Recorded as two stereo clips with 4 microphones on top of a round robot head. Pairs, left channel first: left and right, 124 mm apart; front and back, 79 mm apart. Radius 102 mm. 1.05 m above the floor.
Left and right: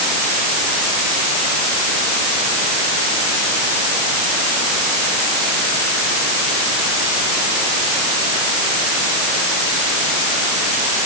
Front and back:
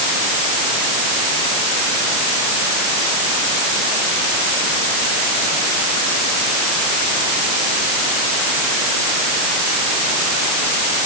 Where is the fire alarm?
I don't hear a fire alarm.